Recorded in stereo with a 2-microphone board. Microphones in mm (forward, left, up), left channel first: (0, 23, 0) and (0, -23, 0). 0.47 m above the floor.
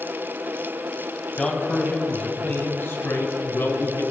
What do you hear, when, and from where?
1.4 s a man speaking: 15° left (ahead or behind), 2.5 m; by 4.0 s 75° left (ahead or behind), 3.5 m